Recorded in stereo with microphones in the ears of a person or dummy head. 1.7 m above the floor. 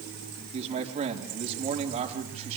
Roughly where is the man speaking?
Right.